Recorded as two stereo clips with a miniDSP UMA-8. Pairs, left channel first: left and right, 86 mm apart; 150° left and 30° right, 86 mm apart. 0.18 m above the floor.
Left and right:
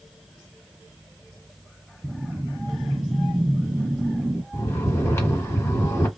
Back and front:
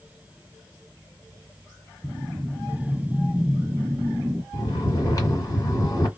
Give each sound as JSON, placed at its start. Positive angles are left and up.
{"t": 2.0, "sound": "a whoosh", "azimuth_deg": -60, "distance_m": 0.5}
{"t": 4.5, "sound": "snoring", "azimuth_deg": 135, "distance_m": 1.7}